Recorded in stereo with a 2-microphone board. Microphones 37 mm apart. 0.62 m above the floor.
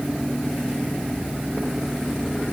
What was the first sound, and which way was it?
Only background noise.